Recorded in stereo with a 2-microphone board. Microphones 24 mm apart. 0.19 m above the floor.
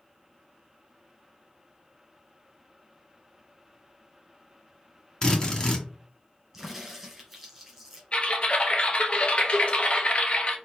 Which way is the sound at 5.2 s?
35° left (ahead or behind).